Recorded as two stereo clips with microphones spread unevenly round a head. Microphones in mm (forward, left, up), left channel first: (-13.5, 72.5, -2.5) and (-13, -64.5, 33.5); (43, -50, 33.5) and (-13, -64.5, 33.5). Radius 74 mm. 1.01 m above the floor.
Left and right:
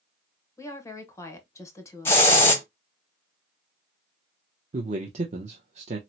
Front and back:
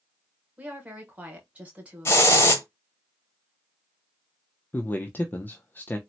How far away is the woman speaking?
About 1.0 m.